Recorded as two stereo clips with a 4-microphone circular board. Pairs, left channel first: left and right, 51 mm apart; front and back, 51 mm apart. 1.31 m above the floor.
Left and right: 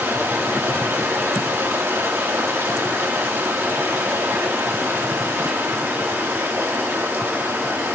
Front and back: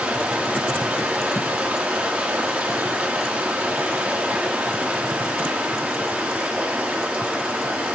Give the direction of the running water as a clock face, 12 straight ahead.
4 o'clock.